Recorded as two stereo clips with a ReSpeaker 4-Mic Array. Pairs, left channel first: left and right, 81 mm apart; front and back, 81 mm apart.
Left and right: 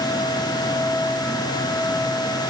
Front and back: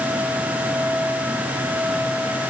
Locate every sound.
Only background noise.